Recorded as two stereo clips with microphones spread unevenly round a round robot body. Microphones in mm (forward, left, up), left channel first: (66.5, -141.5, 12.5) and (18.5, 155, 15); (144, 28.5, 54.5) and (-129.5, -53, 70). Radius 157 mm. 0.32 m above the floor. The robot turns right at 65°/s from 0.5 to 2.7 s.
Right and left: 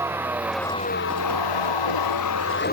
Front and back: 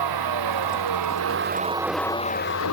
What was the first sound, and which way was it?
A vehicle, 175° right.